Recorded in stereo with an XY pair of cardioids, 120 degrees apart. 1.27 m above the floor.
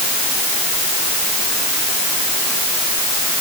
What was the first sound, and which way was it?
Only background noise.